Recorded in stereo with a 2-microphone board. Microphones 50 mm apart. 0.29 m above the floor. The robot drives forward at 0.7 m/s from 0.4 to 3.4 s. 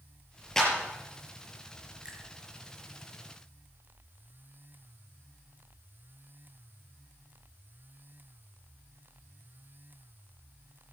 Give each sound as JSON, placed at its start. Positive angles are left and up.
{"t": 0.6, "sound": "a clap", "side_deg": 10, "distance_m": 6.5}
{"t": 2.0, "sound": "a finger snap", "side_deg": -20, "distance_m": 4.0}